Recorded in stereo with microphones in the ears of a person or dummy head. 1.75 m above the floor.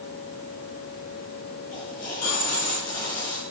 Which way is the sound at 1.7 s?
25° left (ahead or behind).